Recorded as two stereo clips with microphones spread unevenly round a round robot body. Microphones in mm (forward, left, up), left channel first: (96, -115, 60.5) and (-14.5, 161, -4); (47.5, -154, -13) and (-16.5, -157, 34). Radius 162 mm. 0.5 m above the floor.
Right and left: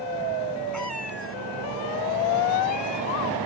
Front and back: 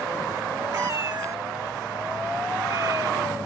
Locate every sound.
0.7 s a cat meowing: 155° right